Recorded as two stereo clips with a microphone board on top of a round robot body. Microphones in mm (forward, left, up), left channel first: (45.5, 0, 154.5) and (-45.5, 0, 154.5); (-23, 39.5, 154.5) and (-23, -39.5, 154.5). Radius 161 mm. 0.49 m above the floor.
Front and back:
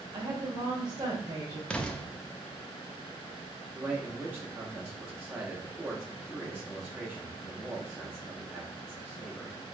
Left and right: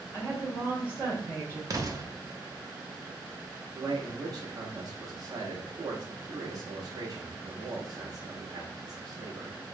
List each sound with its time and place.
0.1 s a woman speaking: 150° right, 2 m
1.7 s an explosion: 75° right, 1.1 m
3.8 s a man speaking: 120° right, 1.4 m